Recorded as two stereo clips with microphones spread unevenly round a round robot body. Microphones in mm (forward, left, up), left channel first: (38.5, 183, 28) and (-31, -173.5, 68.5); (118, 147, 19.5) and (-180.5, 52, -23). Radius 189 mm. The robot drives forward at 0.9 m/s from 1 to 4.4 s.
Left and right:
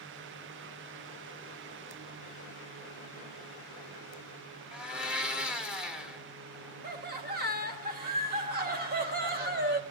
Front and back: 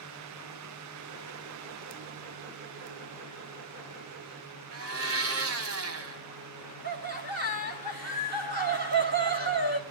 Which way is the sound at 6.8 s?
155° right.